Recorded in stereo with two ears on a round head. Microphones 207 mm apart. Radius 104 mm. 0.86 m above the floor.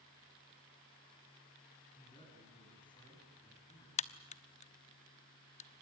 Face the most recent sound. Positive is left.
turn(degrees=30)  # may be behind; listen again after turning